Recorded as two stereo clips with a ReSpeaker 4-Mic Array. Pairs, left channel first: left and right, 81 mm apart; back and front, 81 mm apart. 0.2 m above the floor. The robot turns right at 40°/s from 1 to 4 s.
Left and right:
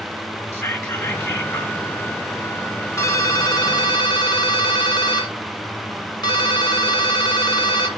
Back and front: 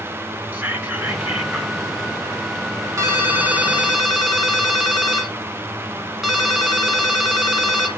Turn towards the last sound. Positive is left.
turn(degrees=85)